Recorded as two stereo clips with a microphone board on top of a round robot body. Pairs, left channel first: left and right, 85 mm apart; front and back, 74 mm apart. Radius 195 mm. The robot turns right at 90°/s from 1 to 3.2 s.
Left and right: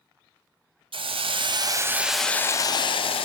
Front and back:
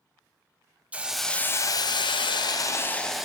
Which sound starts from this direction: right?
A hiss, at 0.9 s.